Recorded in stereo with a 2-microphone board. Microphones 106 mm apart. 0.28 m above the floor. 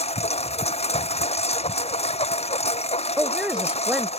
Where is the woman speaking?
10° right (ahead or behind).